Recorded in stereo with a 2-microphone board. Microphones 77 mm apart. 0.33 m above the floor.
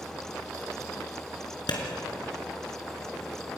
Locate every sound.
1.7 s a clap: 70° left (ahead or behind), 3.5 m